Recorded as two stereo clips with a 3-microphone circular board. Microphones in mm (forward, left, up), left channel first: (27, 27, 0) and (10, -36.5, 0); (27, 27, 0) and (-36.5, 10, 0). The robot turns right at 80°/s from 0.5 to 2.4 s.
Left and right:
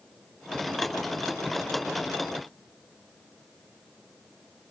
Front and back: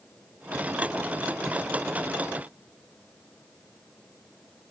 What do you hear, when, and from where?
Only background noise.